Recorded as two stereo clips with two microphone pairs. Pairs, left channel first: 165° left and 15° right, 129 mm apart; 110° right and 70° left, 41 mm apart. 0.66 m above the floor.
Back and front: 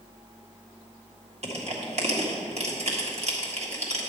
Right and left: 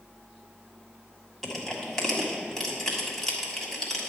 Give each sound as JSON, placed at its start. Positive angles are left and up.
{"t": 1.4, "sound": "crushing", "azimuth_deg": -30, "distance_m": 1.6}